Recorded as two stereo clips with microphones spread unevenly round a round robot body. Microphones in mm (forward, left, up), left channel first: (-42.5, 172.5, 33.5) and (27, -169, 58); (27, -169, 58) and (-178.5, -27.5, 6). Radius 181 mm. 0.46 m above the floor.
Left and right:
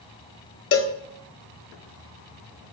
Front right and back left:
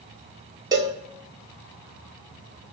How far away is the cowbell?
About 0.9 m.